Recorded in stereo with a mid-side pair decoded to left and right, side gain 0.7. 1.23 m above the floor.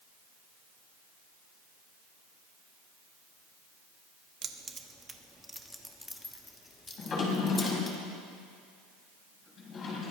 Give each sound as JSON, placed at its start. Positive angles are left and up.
{"t": 4.4, "sound": "keys jangling", "azimuth_deg": -35, "distance_m": 1.2}
{"t": 7.0, "sound": "a drawer", "azimuth_deg": 35, "distance_m": 4.5}